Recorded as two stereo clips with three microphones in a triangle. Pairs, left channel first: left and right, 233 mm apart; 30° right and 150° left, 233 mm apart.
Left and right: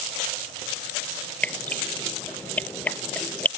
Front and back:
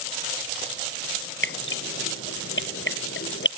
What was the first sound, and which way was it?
Dripping, 5° left.